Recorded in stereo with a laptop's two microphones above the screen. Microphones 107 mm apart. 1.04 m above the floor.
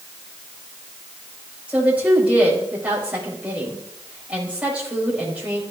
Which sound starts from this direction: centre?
A woman speaking, at 1.7 s.